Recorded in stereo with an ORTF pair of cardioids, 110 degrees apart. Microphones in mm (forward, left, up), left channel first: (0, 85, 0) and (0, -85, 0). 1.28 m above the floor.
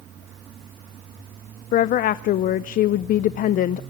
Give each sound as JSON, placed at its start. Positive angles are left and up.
{"t": 1.7, "sound": "a woman speaking", "azimuth_deg": 55, "distance_m": 0.5}